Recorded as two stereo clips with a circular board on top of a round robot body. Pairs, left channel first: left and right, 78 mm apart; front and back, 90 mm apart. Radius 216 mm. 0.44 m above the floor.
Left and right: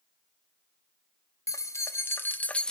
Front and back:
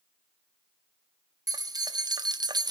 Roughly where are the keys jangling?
Behind left.